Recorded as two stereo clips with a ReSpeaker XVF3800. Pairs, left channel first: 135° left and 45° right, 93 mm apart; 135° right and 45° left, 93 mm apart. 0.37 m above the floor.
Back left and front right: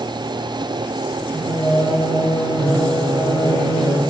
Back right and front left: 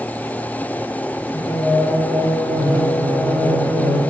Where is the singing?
165° right, 1.4 m.